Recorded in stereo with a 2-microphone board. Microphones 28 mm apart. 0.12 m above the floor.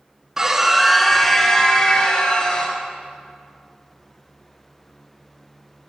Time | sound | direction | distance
0.4 | a scream | 20° right (ahead or behind) | 1.2 m